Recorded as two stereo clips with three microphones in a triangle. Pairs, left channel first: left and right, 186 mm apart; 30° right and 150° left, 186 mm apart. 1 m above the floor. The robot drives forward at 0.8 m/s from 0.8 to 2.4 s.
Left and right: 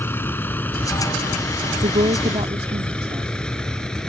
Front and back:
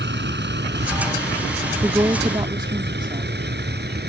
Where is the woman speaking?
135° right; by 3.3 s 145° right.